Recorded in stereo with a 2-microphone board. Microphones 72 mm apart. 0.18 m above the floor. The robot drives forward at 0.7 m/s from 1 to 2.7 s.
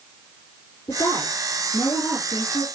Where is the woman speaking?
55° left (ahead or behind), 6 m; by 2.7 s 50° left (ahead or behind), 6.5 m.